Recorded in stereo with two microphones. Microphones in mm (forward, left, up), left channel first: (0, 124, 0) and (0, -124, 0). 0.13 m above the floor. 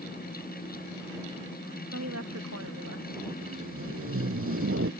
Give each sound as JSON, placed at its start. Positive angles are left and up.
{"t": 1.9, "sound": "a woman speaking", "side_deg": -85}
{"t": 3.4, "sound": "tape being pulled", "side_deg": -65}